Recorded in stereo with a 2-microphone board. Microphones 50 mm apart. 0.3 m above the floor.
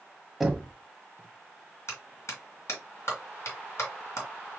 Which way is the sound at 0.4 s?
5° right (ahead or behind).